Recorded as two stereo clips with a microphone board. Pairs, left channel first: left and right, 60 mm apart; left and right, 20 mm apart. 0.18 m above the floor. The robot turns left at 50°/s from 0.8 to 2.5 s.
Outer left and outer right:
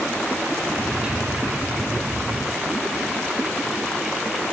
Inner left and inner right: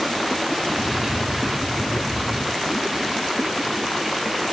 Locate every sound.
Only background noise.